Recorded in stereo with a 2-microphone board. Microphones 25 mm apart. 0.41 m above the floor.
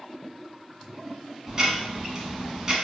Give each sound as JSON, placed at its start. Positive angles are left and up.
{"t": 1.5, "sound": "ticking", "side_deg": -20, "distance_m": 0.9}